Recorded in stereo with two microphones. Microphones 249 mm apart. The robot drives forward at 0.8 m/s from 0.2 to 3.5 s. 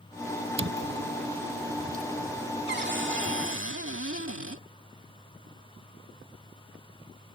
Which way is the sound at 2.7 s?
45° right (ahead or behind).